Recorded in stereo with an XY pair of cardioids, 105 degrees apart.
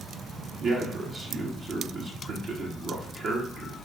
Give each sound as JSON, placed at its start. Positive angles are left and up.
{"t": 0.6, "sound": "a man speaking", "azimuth_deg": -55, "distance_m": 1.0}